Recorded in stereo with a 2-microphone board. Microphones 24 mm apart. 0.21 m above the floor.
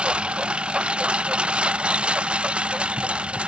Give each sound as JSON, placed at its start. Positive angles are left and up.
{"t": 0.0, "sound": "a lawn mower", "side_deg": -45}